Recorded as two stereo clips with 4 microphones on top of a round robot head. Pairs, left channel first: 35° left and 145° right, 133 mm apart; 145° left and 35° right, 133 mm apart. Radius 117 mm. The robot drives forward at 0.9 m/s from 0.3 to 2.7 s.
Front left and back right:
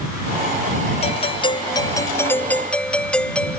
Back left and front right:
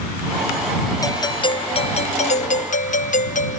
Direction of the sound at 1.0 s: 80° left.